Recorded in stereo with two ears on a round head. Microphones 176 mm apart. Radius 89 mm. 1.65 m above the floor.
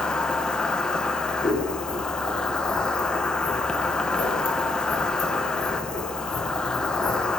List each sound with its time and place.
0.0 s an insect: 5° left (ahead or behind), 0.8 m
1.4 s scissors: 30° left (ahead or behind), 3 m